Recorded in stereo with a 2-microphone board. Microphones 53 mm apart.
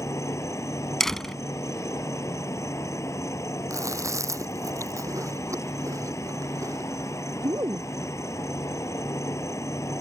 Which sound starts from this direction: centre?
A door slam, at 1.0 s.